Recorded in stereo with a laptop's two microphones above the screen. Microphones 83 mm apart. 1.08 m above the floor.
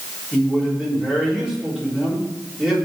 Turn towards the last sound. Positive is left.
turn(degrees=-10)  # may be behind; listen again after turning